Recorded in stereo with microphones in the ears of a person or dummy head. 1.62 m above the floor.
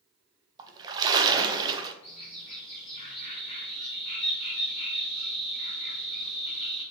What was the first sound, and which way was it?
A splash, 25° right (ahead or behind).